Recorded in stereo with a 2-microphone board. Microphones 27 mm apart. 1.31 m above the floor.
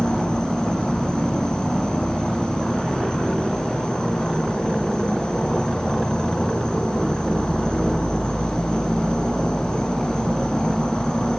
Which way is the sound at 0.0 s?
30° left (ahead or behind).